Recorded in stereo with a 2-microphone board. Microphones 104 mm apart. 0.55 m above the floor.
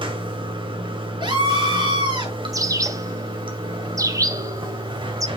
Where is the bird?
30° right (ahead or behind), 0.8 m.